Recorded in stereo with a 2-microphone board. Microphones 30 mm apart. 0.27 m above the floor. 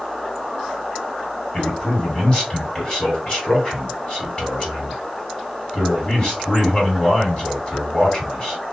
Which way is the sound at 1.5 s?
40° left (ahead or behind).